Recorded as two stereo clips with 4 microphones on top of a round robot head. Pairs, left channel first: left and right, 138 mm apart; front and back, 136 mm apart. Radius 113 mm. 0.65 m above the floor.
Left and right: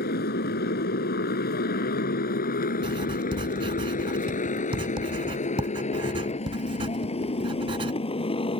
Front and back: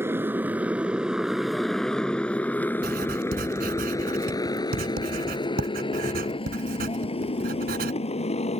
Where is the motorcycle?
110° left; by 8.6 s 40° left.